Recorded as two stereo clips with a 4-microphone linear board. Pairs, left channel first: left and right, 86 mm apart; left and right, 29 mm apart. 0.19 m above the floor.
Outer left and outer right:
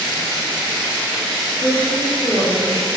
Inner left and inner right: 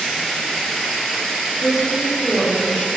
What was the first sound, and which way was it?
A woman speaking, 5° left (ahead or behind).